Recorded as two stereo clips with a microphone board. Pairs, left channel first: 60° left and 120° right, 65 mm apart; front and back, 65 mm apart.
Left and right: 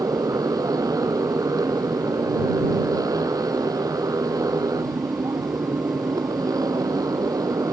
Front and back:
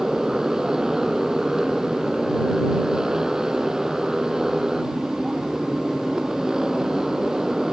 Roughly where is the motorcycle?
Right.